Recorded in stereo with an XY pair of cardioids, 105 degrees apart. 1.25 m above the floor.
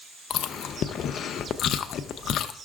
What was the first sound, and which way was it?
Chewing, 65° left.